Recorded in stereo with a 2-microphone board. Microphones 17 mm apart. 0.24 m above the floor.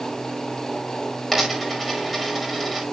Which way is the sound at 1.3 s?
5° right (ahead or behind).